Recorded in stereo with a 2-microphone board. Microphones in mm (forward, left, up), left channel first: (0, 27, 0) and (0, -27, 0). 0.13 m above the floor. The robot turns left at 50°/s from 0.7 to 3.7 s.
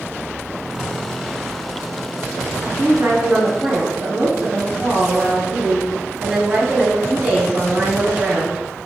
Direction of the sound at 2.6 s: 95° right.